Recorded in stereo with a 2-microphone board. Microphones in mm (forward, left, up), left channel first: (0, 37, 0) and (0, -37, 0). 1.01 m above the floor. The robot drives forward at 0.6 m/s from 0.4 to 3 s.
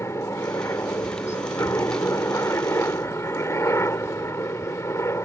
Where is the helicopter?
40° left (ahead or behind).